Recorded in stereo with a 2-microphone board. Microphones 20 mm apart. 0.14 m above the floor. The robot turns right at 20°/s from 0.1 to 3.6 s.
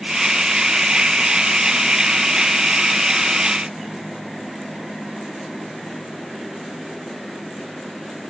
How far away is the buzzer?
I don't hear a buzzer.